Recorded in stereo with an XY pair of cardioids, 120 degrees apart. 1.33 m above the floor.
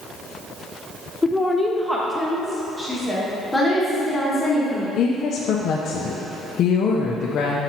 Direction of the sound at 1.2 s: 15° left.